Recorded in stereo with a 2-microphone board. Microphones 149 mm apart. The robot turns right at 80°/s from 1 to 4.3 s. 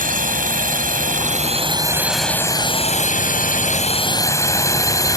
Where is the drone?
65° right (ahead or behind); by 5.2 s 25° left (ahead or behind).